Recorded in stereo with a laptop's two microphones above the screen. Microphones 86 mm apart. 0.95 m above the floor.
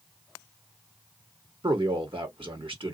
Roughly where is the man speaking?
Right.